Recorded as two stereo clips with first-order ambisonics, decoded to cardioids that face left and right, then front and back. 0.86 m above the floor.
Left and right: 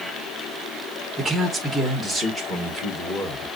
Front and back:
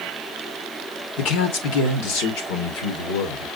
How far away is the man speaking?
About 1.3 m.